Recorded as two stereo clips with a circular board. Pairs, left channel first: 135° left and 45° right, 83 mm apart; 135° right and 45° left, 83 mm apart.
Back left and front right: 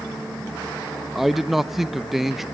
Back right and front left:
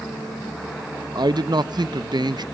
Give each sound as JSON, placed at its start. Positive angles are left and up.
{"t": 1.1, "sound": "a man speaking", "azimuth_deg": 40, "distance_m": 0.6}